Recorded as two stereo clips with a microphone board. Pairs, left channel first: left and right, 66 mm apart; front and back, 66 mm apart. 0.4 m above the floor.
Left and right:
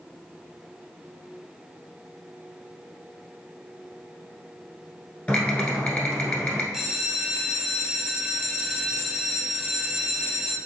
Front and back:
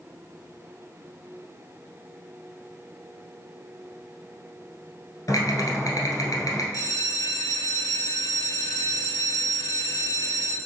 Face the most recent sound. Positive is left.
turn(degrees=-5)